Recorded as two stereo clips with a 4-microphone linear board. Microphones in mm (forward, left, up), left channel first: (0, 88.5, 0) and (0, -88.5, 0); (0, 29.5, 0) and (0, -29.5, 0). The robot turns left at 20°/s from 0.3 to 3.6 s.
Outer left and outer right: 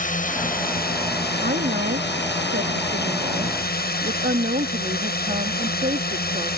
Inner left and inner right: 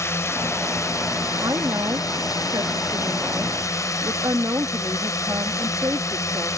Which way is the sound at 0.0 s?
130° left.